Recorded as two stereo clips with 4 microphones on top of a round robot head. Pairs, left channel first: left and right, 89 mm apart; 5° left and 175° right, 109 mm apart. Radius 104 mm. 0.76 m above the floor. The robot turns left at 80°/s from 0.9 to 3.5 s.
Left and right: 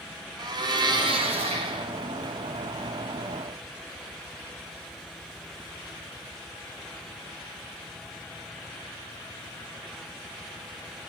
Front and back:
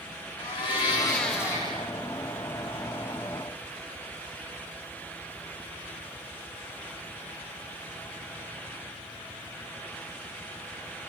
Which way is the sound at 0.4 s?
50° right.